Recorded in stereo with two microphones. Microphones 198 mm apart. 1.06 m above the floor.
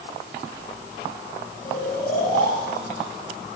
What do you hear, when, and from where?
1.6 s snoring: 40° left (ahead or behind), 8 m